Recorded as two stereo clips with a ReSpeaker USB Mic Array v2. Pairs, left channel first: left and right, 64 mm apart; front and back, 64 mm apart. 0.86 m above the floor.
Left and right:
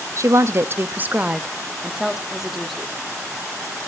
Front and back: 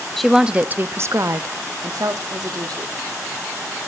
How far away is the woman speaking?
About 0.7 m.